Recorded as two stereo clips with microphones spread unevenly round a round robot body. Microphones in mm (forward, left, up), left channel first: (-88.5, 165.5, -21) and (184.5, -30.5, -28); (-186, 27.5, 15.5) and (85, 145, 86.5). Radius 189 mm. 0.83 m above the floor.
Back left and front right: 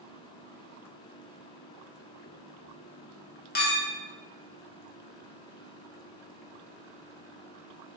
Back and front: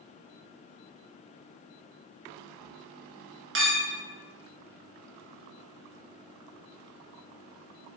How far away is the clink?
About 0.8 m.